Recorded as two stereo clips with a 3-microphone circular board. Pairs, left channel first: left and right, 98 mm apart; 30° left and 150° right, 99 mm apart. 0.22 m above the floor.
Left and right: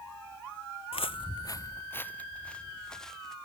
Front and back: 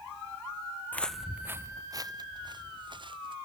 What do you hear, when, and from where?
0.9 s footsteps: 100° left; by 3.4 s 175° left